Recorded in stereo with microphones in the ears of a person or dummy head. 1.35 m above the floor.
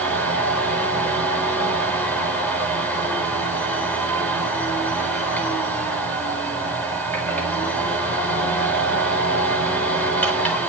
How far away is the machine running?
About 4.5 m.